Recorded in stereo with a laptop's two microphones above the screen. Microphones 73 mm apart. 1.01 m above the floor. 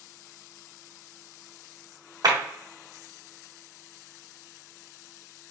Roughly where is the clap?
Right.